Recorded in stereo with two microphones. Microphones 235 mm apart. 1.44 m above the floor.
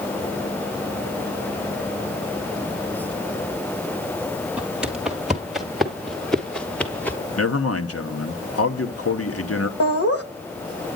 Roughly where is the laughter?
Left.